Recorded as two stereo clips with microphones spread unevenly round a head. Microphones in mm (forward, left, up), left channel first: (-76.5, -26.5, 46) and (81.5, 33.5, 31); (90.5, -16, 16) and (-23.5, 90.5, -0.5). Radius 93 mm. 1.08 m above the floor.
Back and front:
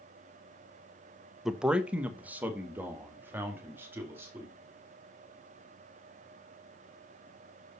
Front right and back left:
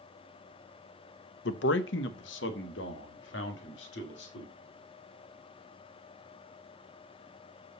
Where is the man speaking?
65° right, 0.6 m; by 4.5 s 55° right, 2.5 m.